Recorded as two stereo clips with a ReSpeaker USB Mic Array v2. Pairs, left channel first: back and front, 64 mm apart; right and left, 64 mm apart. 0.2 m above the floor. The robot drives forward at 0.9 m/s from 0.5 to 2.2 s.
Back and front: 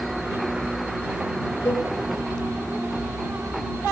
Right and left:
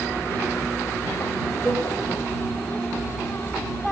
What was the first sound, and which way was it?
A cowbell, 170° right.